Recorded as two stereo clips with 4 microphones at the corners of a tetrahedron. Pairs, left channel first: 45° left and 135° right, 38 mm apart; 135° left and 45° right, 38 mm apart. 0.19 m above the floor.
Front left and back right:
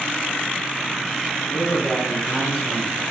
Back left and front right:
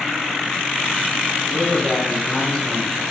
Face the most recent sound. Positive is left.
turn(degrees=80)